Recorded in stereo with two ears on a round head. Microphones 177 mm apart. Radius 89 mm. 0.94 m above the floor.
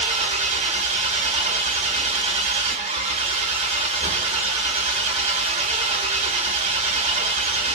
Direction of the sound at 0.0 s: 30° right (ahead or behind).